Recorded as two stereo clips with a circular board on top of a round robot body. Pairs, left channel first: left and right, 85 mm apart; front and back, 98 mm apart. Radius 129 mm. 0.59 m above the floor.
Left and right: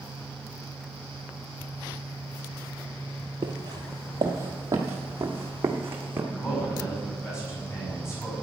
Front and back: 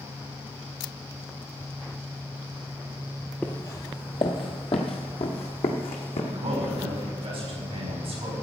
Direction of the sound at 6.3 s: 150° left.